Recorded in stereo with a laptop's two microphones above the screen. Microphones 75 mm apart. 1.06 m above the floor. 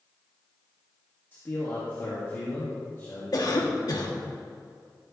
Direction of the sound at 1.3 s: 35° left (ahead or behind).